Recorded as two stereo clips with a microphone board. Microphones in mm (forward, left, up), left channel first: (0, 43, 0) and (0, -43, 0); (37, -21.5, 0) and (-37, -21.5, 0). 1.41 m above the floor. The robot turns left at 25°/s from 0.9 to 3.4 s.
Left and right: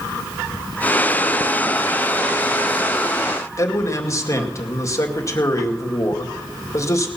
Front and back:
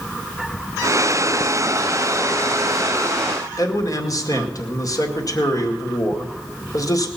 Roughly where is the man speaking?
Ahead left.